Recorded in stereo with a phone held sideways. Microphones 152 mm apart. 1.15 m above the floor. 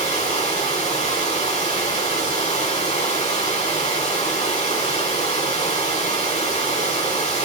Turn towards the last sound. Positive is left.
turn(degrees=50)  # may be behind; listen again after turning